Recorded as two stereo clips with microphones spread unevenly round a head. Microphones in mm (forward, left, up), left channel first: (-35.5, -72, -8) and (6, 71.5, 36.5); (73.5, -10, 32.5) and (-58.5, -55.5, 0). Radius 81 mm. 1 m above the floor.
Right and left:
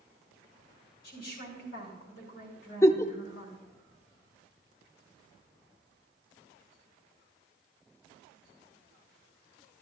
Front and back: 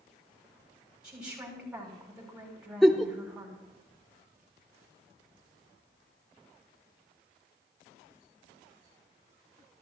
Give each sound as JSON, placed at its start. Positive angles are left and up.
{"t": 1.0, "sound": "a woman speaking", "azimuth_deg": -75, "distance_m": 6.0}
{"t": 2.8, "sound": "a giggle", "azimuth_deg": -15, "distance_m": 0.6}